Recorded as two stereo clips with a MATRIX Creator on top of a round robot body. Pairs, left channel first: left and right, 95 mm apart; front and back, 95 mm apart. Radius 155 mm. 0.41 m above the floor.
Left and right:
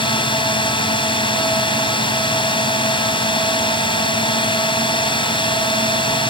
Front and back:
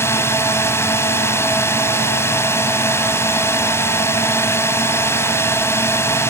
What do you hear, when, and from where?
0.0 s a drone: 60° left